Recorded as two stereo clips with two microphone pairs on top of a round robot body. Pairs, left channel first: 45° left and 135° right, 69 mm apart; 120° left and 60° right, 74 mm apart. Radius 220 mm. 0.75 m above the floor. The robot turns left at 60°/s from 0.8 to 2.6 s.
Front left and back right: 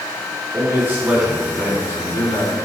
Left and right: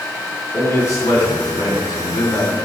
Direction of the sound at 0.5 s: 165° left.